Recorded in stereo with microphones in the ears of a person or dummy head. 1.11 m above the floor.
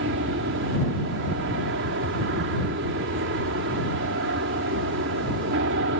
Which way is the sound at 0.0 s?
55° right (ahead or behind).